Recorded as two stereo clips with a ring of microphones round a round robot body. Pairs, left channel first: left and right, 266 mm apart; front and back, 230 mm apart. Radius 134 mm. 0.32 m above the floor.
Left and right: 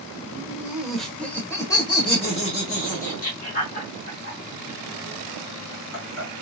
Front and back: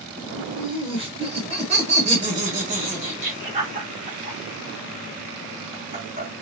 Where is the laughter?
145° right, 1.5 m; by 6.3 s 125° left, 3.5 m.